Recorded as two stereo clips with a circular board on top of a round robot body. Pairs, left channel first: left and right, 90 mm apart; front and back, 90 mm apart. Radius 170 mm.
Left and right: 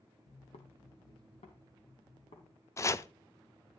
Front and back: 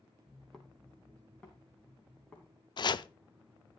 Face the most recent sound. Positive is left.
turn(degrees=35)